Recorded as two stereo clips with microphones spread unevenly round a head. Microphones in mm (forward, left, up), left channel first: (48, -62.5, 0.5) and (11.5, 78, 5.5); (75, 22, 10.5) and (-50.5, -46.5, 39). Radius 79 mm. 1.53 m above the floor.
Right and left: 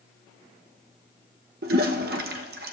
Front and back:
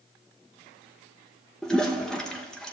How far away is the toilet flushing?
About 1.0 m.